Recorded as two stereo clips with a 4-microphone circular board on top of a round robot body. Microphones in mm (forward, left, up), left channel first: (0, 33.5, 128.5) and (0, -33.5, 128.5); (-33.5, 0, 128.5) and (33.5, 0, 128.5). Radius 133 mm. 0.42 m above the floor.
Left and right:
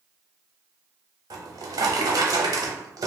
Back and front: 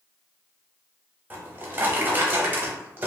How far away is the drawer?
About 0.6 m.